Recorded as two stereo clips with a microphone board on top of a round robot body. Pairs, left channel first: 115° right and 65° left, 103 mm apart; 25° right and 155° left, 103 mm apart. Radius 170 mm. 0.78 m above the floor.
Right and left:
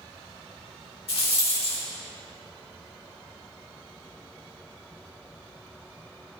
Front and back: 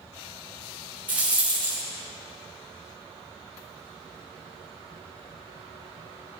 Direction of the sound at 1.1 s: 130° right.